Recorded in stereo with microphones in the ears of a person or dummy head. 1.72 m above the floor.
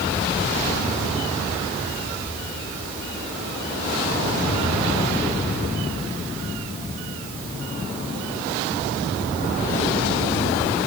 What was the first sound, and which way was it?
Only background noise.